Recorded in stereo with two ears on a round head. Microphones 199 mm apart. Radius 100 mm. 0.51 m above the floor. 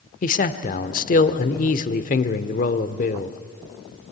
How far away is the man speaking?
About 1.2 m.